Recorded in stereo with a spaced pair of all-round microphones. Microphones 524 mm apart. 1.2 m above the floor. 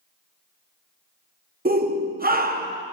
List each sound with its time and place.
1.6 s a shout: 20° right (ahead or behind), 0.7 m